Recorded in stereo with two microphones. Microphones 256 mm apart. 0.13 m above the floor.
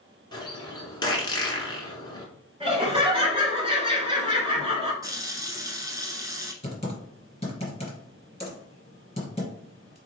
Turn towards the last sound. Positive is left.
turn(degrees=25)  # may be behind; listen again after turning